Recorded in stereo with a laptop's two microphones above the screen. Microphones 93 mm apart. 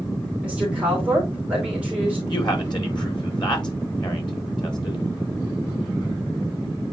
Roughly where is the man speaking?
Left.